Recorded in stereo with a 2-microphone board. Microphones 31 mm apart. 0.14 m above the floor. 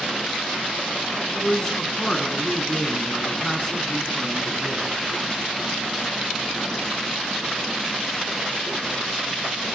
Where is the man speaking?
20° left (ahead or behind), 1.1 m.